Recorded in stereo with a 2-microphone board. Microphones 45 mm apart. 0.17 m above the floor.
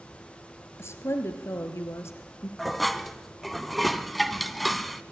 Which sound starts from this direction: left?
A woman speaking, at 0.8 s.